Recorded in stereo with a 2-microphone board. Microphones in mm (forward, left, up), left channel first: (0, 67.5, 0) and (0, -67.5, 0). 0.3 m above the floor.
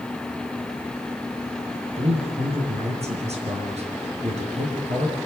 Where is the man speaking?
55° right (ahead or behind), 5 m.